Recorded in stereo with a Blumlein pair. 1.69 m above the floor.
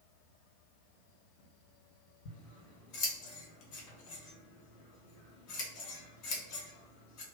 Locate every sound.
2.2 s scissors: 40° left, 1.7 m